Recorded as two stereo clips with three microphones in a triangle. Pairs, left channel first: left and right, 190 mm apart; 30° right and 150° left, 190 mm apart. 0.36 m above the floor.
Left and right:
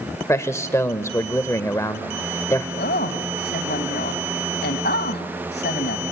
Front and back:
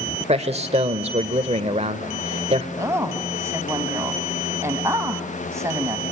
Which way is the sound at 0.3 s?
150° left.